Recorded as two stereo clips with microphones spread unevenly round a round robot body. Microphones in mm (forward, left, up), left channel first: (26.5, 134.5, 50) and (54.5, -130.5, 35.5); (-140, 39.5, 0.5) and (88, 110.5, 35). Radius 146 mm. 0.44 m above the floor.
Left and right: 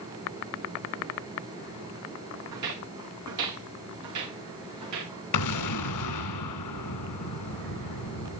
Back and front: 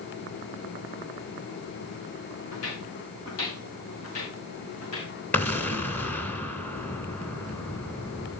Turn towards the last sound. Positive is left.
turn(degrees=115)